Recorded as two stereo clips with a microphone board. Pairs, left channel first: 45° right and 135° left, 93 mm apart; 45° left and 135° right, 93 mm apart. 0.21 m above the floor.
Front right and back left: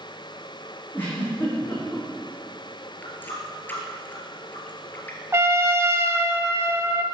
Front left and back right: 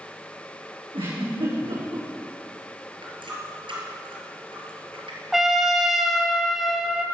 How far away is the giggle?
About 6.5 m.